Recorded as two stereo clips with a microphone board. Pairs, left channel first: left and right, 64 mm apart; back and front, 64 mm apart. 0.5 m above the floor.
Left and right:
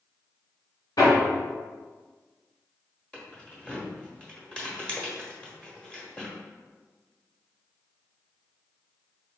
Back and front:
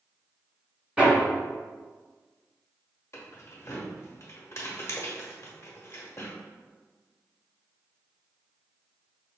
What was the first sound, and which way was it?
Hammering, 75° left.